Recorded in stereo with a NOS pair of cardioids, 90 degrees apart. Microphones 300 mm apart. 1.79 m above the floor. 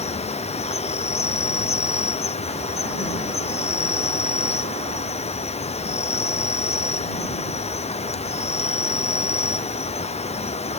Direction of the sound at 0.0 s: 20° left.